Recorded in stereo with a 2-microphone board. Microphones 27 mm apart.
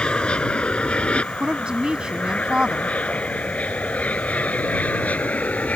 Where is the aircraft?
40° left (ahead or behind); by 5.8 s 65° left (ahead or behind).